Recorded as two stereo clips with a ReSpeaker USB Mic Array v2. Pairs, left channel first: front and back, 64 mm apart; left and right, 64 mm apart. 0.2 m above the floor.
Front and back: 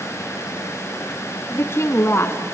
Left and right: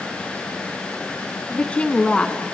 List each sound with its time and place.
1.5 s a woman speaking: 25° left, 1.6 m